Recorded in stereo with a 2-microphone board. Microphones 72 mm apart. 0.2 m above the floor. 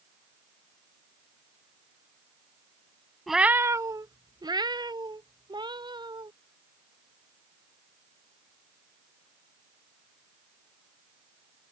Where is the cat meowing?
5° left (ahead or behind); by 6.3 s 85° right.